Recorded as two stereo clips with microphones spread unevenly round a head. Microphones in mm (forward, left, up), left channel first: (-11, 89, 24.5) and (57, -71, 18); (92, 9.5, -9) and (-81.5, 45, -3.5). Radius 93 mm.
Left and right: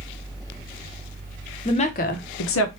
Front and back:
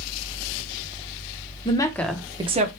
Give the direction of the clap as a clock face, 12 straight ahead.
No clap in this recording.